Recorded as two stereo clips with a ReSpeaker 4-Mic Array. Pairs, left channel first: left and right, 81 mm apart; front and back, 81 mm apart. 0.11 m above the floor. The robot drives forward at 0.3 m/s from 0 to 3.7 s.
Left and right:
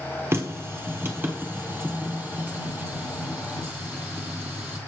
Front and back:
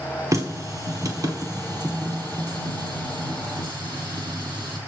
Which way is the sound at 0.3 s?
140° right.